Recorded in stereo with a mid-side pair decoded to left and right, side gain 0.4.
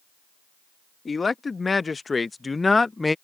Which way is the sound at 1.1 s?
35° left.